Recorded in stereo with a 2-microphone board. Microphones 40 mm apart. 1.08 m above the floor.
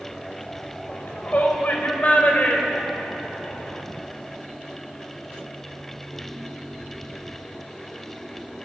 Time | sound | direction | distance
0.9 | a shout | 50° left (ahead or behind) | 5.5 m